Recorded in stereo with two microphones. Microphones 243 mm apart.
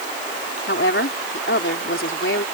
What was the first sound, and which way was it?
A woman speaking, 55° left (ahead or behind).